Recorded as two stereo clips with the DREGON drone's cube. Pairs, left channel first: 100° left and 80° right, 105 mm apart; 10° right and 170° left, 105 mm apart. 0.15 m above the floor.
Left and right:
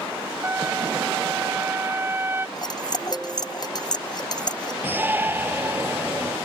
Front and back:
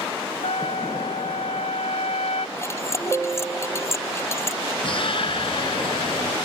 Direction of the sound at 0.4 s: 10° right.